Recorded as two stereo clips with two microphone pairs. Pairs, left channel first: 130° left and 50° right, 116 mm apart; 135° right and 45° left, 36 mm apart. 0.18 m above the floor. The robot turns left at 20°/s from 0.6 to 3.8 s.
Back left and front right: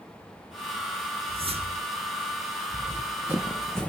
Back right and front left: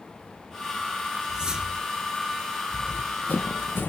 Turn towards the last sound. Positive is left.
turn(degrees=-150)